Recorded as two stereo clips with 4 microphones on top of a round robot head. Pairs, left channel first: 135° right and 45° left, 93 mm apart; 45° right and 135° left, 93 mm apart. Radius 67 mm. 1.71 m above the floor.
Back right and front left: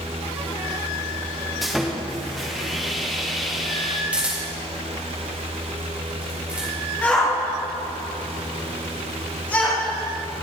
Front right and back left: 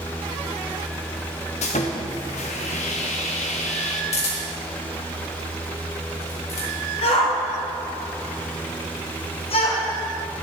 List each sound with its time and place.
1.6 s sawing: 45° right, 1.1 m
4.1 s a camera shutter: 35° right, 4 m
7.0 s a shout: 60° right, 1.7 m